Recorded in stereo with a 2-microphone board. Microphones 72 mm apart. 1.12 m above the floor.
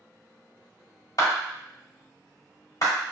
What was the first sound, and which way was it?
A clap, 55° left (ahead or behind).